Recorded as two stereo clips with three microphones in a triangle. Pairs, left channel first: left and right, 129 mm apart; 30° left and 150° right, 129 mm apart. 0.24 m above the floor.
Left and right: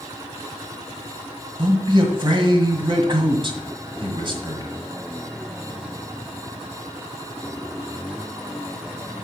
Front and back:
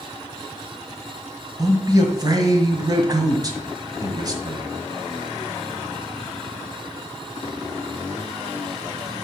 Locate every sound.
1.6 s a man speaking: 110° right, 1.6 m